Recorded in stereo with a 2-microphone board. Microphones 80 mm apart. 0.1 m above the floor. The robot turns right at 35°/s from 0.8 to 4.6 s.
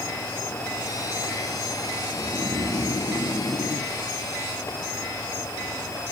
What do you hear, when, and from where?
2.1 s snoring: 70° left, 1.3 m; by 3.9 s 130° left, 1.3 m